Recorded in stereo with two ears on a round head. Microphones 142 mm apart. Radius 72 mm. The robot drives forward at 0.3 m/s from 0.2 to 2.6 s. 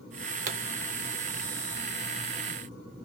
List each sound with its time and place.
0.5 s a pop: 50° right (ahead or behind), 0.6 m